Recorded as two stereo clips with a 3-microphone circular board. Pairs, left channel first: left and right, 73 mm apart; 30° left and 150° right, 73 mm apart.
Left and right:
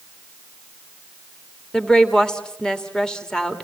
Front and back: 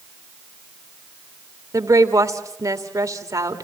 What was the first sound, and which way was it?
A woman speaking, 170° left.